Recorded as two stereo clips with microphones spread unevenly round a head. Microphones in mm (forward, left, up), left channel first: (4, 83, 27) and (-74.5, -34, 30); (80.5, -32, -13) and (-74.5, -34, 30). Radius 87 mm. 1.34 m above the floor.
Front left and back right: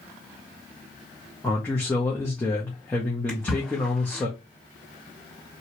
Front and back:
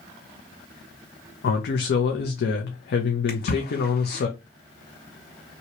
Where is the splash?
30° right, 2.5 m.